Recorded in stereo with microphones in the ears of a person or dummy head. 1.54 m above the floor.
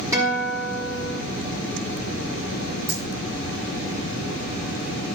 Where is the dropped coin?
75° right (ahead or behind), 6.5 m.